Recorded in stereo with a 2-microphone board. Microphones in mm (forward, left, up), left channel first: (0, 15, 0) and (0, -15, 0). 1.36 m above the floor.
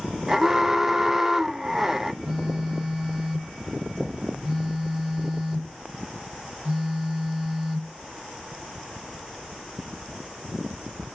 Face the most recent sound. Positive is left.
turn(degrees=-25)  # may be behind; listen again after turning